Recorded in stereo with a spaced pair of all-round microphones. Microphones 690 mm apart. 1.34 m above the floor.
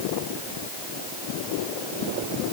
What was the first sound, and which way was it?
Only background noise.